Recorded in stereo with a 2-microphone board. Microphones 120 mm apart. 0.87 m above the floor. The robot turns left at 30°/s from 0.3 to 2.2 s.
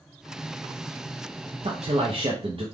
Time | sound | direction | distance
1.6 | a man speaking | 55° right (ahead or behind) | 0.5 m